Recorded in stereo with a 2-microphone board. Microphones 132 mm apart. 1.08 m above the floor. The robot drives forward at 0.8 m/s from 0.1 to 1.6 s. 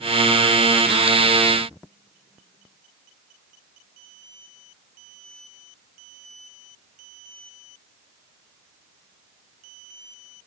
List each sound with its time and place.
Only background noise.